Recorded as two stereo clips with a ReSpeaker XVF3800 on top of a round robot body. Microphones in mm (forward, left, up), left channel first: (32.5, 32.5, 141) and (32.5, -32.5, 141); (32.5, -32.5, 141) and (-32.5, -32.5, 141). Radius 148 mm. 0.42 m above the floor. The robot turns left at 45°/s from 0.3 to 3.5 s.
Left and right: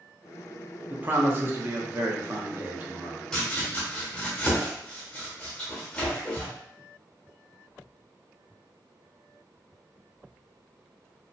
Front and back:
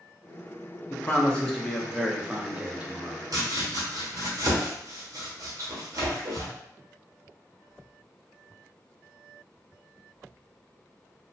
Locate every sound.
0.9 s a man speaking: 45° right, 0.8 m; by 3.2 s 150° right, 0.8 m
3.3 s chopping: 170° left, 1.4 m; by 6.5 s 160° left, 1.4 m